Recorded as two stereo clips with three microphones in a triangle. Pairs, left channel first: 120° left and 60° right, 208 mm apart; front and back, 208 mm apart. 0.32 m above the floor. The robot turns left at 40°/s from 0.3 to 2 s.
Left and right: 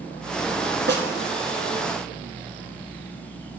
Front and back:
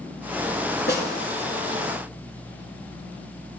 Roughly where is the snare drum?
Ahead right.